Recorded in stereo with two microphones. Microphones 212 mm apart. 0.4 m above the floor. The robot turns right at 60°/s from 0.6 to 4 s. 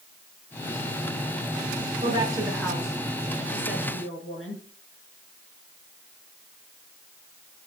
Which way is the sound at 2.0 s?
35° right (ahead or behind).